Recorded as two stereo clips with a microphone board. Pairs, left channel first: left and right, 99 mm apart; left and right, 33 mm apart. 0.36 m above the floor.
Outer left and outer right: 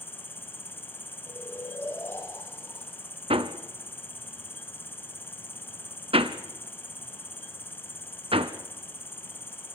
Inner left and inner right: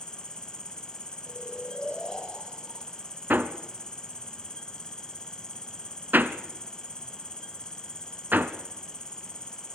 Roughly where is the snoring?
Left.